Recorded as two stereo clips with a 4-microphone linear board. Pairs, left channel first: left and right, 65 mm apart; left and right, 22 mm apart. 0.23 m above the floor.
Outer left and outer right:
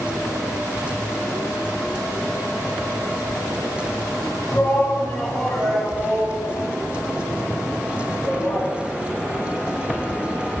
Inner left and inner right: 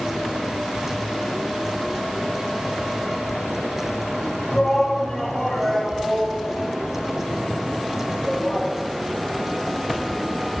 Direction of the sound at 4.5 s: 30° left (ahead or behind).